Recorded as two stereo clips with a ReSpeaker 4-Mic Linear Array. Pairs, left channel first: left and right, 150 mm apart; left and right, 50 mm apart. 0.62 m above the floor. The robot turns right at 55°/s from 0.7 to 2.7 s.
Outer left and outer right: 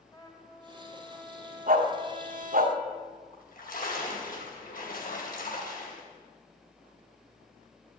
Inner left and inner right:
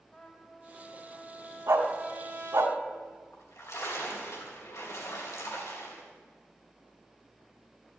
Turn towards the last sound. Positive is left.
turn(degrees=70)  # may be behind; listen again after turning